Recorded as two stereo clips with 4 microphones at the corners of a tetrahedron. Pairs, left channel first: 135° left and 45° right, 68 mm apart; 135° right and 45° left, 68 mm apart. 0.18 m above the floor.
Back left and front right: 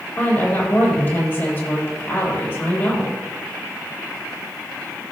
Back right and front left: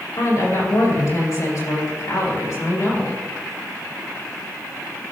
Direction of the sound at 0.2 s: 175° right.